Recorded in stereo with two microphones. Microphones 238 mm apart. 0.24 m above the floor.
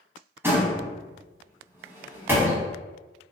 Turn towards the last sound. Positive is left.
turn(degrees=-10)  # may be behind; listen again after turning